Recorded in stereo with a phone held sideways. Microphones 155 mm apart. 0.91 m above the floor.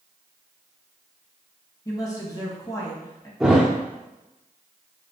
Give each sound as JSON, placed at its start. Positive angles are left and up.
{"t": 1.9, "sound": "a woman speaking", "side_deg": 20, "distance_m": 1.2}
{"t": 3.4, "sound": "a thud", "side_deg": -5, "distance_m": 0.7}